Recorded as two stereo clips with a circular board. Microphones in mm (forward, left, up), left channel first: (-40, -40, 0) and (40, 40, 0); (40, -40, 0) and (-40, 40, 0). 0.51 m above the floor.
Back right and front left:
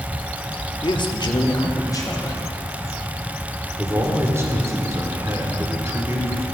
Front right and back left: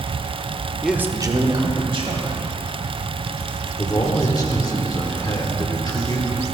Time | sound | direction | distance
0.8 | a man speaking | 135° right | 0.8 m
3.8 | a man speaking | 10° right | 1.7 m